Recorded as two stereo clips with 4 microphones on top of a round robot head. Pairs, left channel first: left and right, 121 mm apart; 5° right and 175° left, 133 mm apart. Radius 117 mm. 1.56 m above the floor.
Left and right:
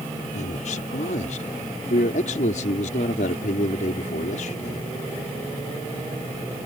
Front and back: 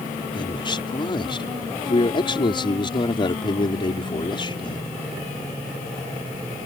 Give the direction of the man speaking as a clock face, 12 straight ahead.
10 o'clock.